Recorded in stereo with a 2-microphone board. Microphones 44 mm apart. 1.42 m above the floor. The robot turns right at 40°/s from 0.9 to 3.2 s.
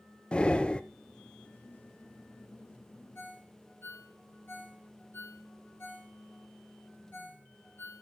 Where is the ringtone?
55° left (ahead or behind), 3 m.